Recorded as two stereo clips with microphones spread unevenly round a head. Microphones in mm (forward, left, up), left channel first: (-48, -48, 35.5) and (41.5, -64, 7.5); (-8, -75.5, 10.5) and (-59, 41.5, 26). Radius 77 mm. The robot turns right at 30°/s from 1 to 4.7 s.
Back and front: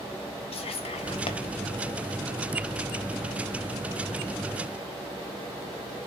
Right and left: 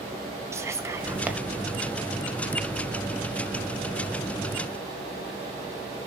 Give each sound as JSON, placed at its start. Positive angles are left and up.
{"t": 0.5, "sound": "whispering", "azimuth_deg": -175, "distance_m": 1.3}